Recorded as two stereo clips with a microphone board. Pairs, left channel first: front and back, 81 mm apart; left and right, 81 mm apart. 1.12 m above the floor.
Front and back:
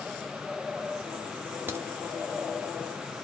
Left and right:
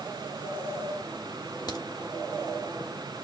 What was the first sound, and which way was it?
A crack, 115° left.